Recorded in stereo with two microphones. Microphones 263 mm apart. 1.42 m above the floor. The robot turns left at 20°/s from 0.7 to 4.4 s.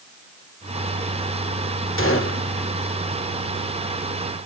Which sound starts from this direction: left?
A gunshot, at 2.0 s.